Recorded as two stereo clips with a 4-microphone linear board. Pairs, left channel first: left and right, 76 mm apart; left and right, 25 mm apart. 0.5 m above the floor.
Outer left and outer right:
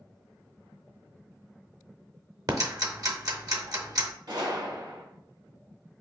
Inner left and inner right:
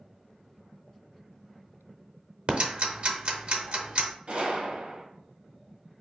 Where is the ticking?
55° right (ahead or behind), 0.7 m.